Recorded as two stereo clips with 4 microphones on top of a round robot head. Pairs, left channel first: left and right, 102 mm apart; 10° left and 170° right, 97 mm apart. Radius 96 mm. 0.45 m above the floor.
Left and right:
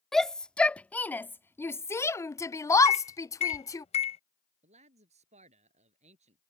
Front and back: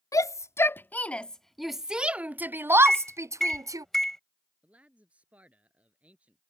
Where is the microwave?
95° left.